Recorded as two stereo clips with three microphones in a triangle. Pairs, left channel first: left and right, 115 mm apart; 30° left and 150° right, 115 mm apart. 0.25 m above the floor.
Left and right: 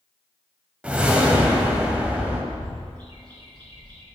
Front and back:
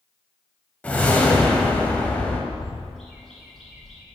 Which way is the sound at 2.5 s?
60° right.